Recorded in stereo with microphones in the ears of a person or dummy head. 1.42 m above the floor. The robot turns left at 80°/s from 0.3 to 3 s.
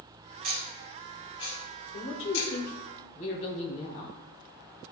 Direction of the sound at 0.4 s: 45° right (ahead or behind).